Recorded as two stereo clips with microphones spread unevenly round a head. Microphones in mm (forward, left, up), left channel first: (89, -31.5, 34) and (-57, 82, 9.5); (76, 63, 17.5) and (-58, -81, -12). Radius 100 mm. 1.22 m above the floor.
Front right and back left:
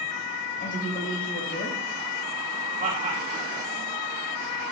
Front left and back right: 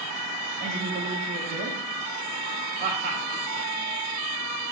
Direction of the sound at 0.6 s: 90° right.